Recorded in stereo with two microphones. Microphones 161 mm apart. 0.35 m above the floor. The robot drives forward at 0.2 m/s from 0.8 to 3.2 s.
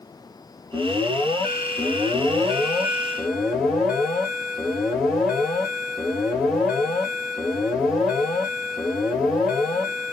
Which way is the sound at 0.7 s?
Centre (ahead or behind).